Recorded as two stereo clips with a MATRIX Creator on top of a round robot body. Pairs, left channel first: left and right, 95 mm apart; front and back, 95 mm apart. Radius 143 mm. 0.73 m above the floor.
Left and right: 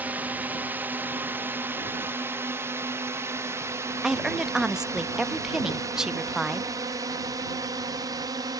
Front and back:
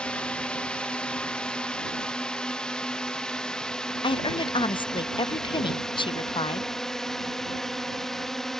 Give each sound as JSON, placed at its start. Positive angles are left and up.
{"t": 0.0, "sound": "a drone", "azimuth_deg": -60}
{"t": 4.0, "sound": "a woman speaking", "azimuth_deg": -5}